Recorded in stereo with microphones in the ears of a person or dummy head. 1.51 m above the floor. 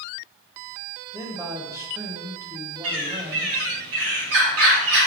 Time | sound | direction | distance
1.1 | a man speaking | 10° right (ahead or behind) | 1.2 m
2.8 | a bird | 75° right (ahead or behind) | 2 m